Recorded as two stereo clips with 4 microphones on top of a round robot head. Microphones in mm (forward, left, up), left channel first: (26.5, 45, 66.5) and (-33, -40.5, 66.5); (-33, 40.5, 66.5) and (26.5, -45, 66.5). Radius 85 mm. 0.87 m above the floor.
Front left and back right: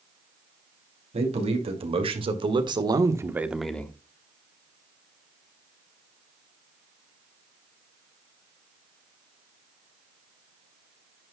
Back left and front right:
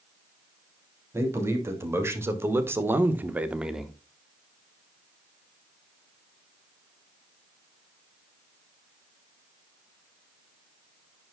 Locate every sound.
1.1 s a man speaking: 120° right, 2.5 m; by 4.0 s 35° left, 1.0 m